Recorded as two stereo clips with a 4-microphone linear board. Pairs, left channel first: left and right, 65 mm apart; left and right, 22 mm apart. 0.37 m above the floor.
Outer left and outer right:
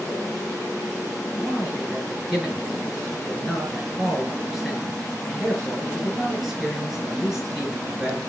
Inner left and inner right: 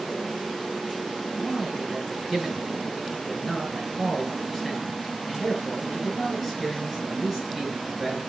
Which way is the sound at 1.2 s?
Centre (ahead or behind).